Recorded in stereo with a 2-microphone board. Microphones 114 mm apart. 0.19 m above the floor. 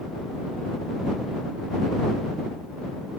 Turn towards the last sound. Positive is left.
No sound to turn to.